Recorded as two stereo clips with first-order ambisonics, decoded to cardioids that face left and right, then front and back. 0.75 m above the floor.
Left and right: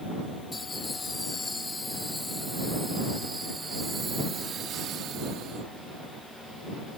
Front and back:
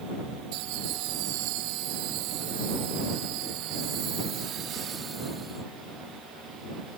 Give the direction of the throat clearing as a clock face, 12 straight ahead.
I don't hear throat clearing.